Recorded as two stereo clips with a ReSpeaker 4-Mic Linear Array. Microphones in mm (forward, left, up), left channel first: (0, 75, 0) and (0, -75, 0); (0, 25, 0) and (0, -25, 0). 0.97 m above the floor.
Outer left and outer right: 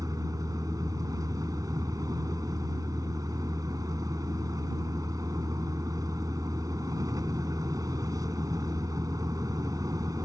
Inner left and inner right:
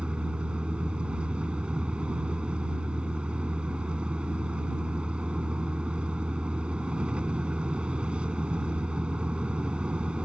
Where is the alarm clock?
No alarm clock in this recording.